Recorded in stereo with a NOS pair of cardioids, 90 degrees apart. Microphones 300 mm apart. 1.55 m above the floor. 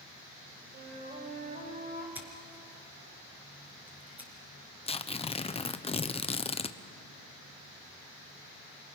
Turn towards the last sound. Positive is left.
turn(degrees=20)